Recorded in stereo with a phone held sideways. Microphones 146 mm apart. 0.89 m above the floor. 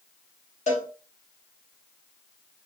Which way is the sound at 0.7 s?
55° left (ahead or behind).